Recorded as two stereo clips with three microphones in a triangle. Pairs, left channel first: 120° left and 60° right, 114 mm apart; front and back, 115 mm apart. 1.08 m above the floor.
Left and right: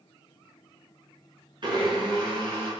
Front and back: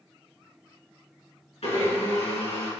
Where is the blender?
20° right, 3.5 m.